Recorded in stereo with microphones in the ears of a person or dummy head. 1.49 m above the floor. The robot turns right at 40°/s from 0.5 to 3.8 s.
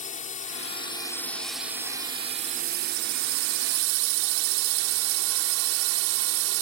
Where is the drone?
140° left; by 6.6 s 90° right.